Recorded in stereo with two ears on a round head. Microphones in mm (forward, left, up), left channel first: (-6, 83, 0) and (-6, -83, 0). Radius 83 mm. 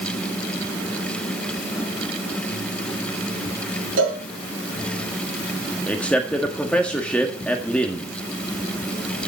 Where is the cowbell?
70° right (ahead or behind), 5 m.